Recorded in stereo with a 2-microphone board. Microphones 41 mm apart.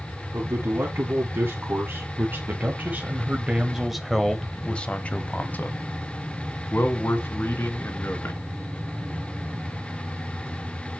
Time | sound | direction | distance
0.3 | a man speaking | 70° right (ahead or behind) | 2.5 m